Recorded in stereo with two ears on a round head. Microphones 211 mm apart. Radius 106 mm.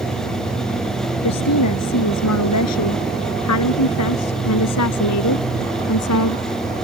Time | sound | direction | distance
1.2 | a woman speaking | 80° left | ?